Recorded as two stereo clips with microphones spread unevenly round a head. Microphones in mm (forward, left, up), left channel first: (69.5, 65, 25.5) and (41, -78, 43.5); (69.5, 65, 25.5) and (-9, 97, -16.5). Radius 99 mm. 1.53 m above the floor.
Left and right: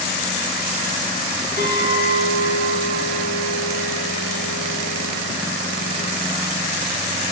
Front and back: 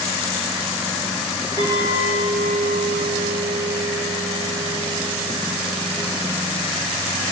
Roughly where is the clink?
Ahead.